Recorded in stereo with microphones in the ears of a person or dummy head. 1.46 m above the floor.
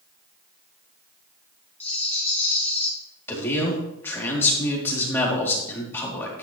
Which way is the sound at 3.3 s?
15° left (ahead or behind).